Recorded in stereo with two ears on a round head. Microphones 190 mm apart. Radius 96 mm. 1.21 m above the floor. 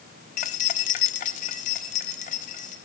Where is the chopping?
I don't hear chopping.